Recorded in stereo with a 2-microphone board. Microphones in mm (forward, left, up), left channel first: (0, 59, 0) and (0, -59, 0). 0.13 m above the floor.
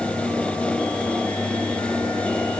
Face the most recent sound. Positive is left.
No sound to turn to.